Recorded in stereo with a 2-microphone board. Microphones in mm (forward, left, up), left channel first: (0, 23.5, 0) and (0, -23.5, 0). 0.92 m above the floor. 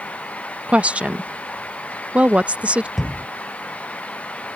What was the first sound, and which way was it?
A woman speaking, 25° right (ahead or behind).